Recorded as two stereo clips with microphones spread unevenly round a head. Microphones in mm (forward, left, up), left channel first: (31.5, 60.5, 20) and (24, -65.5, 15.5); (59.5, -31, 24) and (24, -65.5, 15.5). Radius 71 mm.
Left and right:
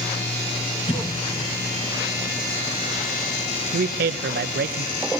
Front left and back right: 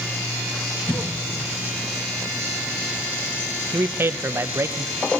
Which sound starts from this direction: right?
A man speaking, at 3.7 s.